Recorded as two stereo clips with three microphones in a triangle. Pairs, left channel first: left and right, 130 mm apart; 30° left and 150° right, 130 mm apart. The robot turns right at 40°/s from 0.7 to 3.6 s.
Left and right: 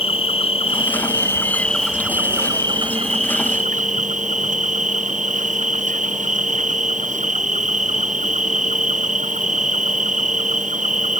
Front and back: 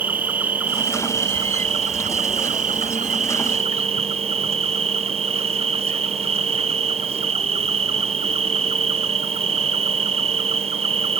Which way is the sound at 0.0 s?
135° left.